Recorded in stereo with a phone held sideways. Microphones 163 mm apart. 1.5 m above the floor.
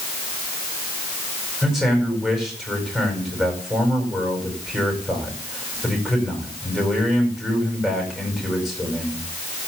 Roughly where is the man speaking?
Centre.